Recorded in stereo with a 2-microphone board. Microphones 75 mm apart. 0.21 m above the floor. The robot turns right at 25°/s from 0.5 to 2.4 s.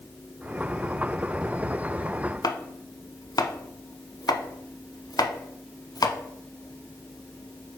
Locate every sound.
2.4 s chopping: 55° left (ahead or behind), 0.6 m